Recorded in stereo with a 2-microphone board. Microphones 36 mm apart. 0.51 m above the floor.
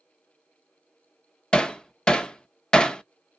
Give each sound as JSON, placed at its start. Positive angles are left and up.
{"t": 1.5, "sound": "hammering", "side_deg": 25, "distance_m": 0.6}